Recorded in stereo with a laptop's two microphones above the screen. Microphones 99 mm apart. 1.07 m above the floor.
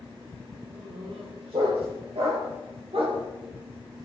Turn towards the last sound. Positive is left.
turn(degrees=-70)  # may be behind; listen again after turning